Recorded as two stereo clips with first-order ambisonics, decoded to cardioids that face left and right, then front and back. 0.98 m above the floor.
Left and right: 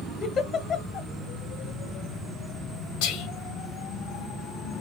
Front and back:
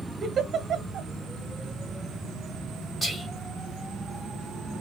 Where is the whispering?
85° left, 1.5 m.